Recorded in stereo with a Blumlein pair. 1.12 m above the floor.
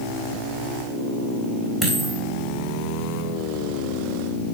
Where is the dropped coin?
5° right, 3.5 m.